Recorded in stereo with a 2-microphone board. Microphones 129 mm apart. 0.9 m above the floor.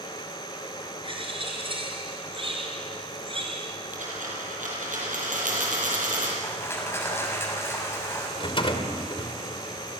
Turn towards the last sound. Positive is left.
turn(degrees=45)  # may be behind; listen again after turning